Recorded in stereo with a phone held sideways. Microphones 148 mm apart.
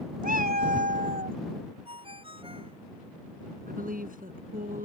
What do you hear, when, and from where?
0.2 s a cat meowing: 80° right
1.9 s a ringtone: 40° right (ahead or behind)
3.7 s a woman speaking: 75° right (ahead or behind)